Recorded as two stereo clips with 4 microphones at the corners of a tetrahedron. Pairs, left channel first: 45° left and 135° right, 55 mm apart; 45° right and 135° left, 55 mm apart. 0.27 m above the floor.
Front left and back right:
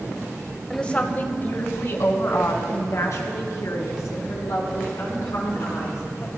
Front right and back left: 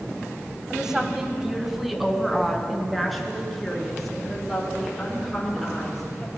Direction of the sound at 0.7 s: 85° left.